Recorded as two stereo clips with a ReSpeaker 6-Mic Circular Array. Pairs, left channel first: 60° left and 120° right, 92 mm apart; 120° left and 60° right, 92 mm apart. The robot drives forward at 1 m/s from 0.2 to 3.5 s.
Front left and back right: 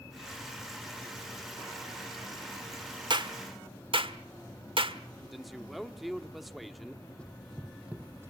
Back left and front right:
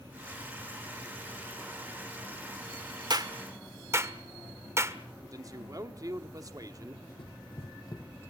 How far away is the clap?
About 1.0 m.